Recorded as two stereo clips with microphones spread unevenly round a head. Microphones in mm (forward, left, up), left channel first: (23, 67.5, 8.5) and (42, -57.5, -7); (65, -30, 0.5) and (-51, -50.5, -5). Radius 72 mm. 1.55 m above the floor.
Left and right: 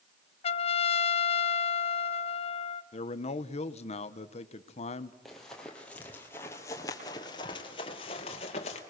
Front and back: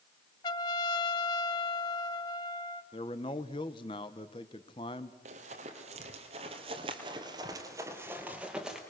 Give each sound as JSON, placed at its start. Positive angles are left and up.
{"t": 0.4, "sound": "a trumpet", "azimuth_deg": 65, "distance_m": 0.8}
{"t": 2.9, "sound": "a man speaking", "azimuth_deg": 65, "distance_m": 0.9}
{"t": 5.2, "sound": "running footsteps", "azimuth_deg": -175, "distance_m": 3.0}